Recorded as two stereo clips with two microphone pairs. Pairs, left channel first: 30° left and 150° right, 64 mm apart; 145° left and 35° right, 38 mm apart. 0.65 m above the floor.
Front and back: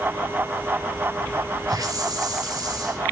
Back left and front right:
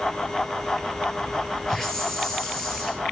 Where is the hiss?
140° right, 2.5 m.